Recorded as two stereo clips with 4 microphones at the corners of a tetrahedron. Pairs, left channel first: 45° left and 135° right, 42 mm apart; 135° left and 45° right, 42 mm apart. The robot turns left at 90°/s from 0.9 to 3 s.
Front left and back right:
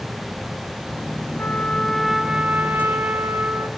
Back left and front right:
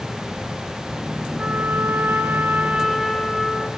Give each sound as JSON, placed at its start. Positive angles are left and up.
{"t": 1.4, "sound": "a trumpet", "azimuth_deg": 15, "distance_m": 1.2}